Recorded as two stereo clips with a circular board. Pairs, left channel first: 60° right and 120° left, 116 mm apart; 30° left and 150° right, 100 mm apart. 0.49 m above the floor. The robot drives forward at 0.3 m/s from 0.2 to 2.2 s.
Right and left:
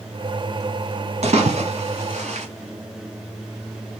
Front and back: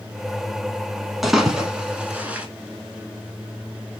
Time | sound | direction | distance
1.2 | a splash | 120° left | 1.0 m